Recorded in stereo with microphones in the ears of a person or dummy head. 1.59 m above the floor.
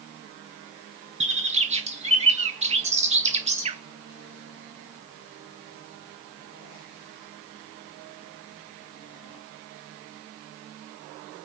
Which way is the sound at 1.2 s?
40° right (ahead or behind).